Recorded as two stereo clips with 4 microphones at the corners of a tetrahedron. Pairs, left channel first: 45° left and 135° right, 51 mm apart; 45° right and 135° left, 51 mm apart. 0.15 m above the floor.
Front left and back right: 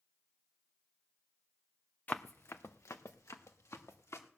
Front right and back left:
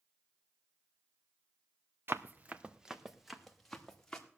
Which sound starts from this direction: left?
Running footsteps, at 2.1 s.